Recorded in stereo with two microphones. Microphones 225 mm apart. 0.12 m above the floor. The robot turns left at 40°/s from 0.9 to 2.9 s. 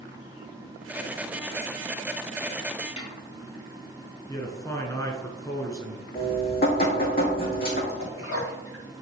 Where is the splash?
75° left (ahead or behind), 3 m.